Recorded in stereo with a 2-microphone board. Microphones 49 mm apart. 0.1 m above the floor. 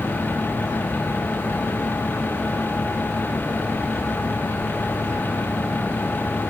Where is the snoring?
No snoring in this recording.